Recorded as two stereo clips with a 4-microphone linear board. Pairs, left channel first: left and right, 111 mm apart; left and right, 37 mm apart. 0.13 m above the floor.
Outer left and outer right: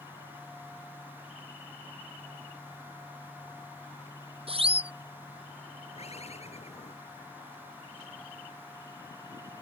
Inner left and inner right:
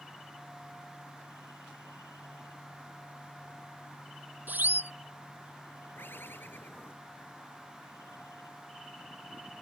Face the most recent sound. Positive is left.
turn(degrees=70)  # may be behind; listen again after turning